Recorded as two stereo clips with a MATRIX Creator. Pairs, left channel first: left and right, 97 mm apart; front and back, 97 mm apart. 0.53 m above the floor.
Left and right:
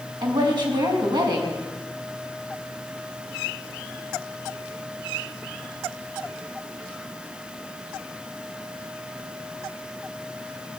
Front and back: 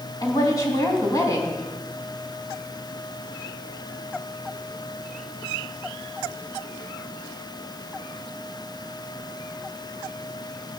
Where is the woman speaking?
55° right, 4 m.